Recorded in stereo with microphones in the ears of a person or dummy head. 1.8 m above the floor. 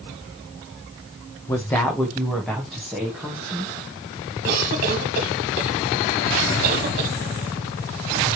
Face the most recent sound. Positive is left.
turn(degrees=-55)  # may be behind; listen again after turning